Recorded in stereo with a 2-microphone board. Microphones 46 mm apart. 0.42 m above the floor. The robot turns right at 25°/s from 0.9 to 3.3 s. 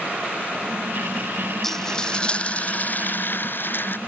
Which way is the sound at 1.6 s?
10° left.